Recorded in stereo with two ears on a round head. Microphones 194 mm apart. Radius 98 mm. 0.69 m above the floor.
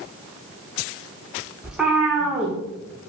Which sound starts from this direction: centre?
A cat meowing, at 1.6 s.